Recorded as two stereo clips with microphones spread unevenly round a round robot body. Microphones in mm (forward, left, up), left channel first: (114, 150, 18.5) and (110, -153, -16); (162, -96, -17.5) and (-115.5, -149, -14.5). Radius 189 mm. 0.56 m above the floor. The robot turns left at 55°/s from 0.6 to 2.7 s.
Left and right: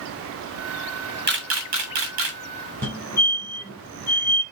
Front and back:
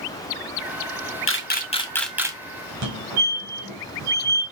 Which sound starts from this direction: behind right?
A fire alarm, at 2.8 s.